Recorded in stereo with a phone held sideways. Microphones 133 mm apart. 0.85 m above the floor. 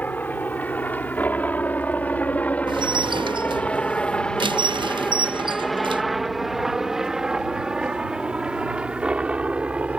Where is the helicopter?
15° left (ahead or behind); by 10.0 s 10° right (ahead or behind).